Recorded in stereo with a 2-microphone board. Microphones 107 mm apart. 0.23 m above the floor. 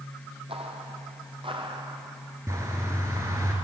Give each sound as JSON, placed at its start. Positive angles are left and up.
{"t": 0.5, "sound": "footsteps", "side_deg": -70, "distance_m": 2.5}
{"t": 2.5, "sound": "a bird", "side_deg": -30, "distance_m": 4.0}